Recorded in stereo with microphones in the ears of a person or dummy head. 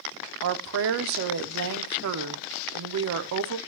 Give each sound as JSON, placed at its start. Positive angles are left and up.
{"t": 0.4, "sound": "a woman speaking", "side_deg": -65, "distance_m": 0.5}